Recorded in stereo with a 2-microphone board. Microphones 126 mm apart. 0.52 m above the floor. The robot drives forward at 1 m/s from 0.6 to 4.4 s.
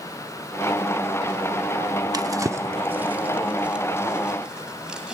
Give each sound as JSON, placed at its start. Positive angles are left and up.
{"t": 2.1, "sound": "a drawer", "side_deg": -30, "distance_m": 0.5}